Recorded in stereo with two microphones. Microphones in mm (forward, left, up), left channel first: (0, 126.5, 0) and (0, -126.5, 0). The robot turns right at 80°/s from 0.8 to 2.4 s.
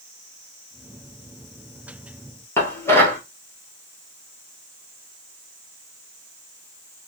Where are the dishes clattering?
10° left (ahead or behind), 1.3 m.